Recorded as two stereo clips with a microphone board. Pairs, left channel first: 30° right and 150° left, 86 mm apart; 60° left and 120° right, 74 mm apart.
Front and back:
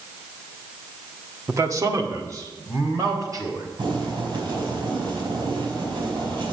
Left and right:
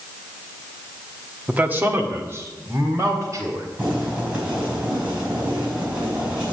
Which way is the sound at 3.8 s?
170° left.